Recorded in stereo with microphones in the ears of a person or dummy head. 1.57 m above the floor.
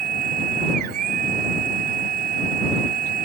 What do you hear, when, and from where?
0.0 s a machine running: 45° right (ahead or behind)